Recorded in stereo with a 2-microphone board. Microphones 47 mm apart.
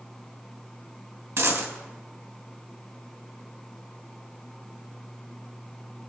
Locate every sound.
1.4 s a dropped coin: 70° right (ahead or behind), 2.5 m